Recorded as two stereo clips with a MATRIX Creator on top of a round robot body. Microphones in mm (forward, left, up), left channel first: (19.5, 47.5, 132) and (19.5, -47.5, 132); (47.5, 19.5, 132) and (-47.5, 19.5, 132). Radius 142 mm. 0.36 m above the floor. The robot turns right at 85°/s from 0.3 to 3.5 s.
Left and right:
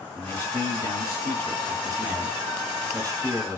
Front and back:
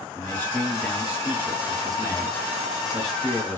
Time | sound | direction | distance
0.1 | a man speaking | 40° left | 1.4 m